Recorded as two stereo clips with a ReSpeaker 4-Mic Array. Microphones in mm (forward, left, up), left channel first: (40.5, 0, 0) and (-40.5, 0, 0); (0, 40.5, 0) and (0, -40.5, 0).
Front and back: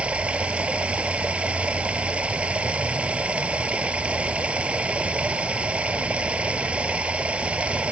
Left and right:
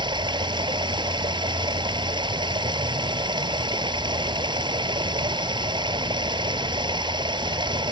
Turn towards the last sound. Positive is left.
turn(degrees=-105)